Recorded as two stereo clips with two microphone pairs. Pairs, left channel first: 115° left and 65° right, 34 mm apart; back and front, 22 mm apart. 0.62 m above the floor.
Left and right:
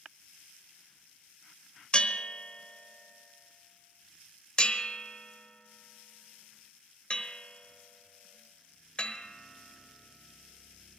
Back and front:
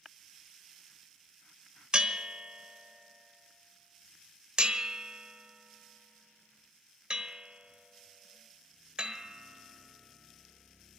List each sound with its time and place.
1.9 s a bell: 55° left, 1.1 m